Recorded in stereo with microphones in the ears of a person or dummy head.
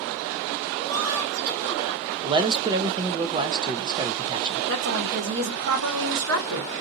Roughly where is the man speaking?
Centre.